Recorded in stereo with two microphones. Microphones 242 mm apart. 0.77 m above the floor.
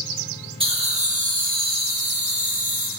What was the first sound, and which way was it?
Laughter, 20° right (ahead or behind).